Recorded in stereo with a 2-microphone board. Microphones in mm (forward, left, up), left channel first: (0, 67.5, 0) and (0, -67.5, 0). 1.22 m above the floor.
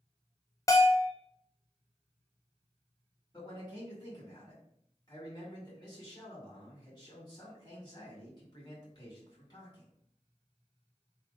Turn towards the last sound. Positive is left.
turn(degrees=30)  # may be behind; listen again after turning